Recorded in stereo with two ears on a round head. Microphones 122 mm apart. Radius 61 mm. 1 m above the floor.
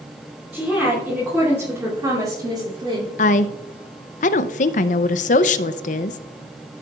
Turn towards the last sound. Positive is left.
turn(degrees=60)  # may be behind; listen again after turning